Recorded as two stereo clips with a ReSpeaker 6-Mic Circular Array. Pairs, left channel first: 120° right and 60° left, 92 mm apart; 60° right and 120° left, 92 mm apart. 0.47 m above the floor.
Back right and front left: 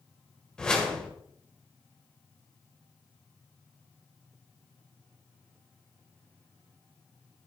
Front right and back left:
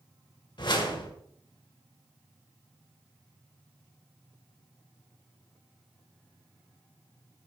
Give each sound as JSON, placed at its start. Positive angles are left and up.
{"t": 0.6, "sound": "a whoosh", "azimuth_deg": -40, "distance_m": 2.0}